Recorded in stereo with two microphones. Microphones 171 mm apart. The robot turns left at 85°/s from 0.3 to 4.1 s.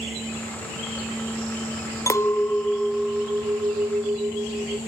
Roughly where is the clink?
Centre.